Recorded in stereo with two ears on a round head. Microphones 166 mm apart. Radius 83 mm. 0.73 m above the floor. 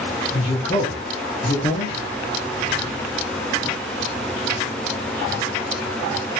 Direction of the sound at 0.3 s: 35° left (ahead or behind).